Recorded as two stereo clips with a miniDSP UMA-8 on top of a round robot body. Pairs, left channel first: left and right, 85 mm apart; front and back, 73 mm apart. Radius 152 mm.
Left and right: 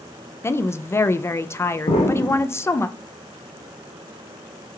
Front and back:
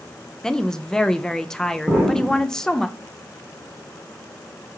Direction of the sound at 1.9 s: 100° left.